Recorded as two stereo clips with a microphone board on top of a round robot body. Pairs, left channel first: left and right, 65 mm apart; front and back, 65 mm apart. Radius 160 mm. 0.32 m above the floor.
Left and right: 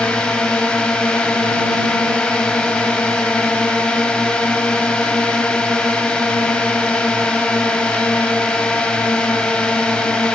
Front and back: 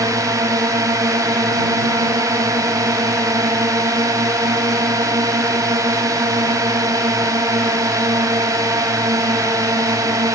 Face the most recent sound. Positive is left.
turn(degrees=165)